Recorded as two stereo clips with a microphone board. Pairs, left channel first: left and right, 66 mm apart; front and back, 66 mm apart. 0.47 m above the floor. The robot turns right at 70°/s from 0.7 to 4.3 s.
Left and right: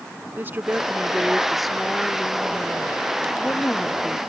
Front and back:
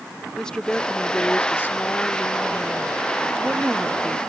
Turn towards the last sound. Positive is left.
turn(degrees=-175)